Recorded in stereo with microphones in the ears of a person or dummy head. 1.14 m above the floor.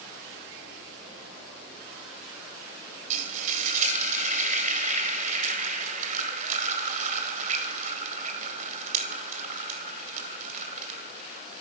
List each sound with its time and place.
3.1 s frying: 45° right (ahead or behind), 1.8 m